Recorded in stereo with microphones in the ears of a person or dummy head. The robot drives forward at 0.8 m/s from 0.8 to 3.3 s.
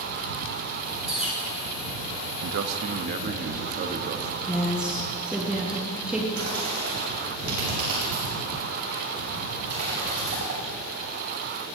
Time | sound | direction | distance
1.1 | a bird | 10° right (ahead or behind) | 4 m
2.4 | a man speaking | 75° right (ahead or behind) | 0.6 m
4.5 | a woman speaking | 15° right (ahead or behind) | 1.1 m
6.3 | a bird | 45° right (ahead or behind) | 3 m